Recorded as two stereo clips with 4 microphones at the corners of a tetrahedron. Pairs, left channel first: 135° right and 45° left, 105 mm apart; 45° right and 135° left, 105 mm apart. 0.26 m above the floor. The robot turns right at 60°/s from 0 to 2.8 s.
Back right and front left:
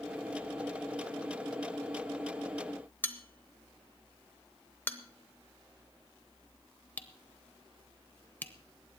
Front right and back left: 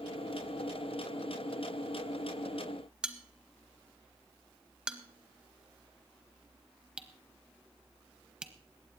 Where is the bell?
160° right, 0.9 m.